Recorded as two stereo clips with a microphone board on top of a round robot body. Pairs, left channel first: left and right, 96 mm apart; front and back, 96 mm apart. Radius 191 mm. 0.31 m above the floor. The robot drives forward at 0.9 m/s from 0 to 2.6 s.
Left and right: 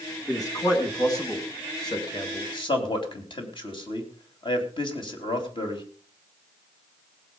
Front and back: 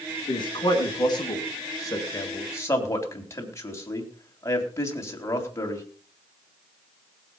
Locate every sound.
0.3 s a man speaking: 35° left, 5 m; by 5.8 s 60° left, 3.5 m